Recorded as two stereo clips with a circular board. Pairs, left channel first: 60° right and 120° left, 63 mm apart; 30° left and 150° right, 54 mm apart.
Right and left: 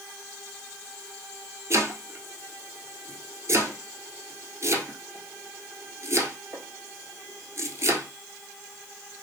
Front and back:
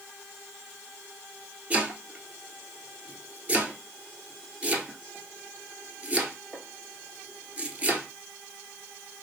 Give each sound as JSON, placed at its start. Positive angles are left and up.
{"t": 1.7, "sound": "chopping", "azimuth_deg": 150, "distance_m": 1.1}